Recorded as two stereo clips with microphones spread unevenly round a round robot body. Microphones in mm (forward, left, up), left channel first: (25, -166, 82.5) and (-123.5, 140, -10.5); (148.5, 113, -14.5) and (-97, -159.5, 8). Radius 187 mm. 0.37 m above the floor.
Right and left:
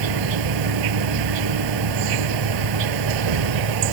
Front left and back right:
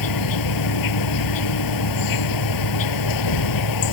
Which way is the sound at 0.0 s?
90° left.